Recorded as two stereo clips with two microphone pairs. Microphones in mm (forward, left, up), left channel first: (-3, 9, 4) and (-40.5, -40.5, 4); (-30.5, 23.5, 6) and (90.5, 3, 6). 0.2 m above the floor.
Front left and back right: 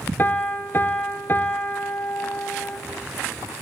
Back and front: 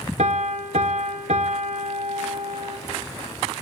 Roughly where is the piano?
Ahead.